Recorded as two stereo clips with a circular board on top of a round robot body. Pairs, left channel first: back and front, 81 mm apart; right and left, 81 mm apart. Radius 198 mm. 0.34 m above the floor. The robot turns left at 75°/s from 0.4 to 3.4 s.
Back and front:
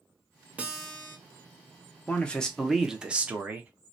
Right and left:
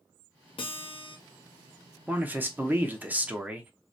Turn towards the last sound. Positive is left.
turn(degrees=35)